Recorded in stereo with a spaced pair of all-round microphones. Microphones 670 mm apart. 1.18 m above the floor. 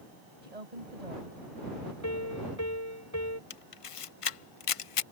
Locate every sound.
0.4 s a woman speaking: 70° right (ahead or behind)
2.0 s a piano: 25° left (ahead or behind)
3.5 s a camera shutter: 55° left (ahead or behind)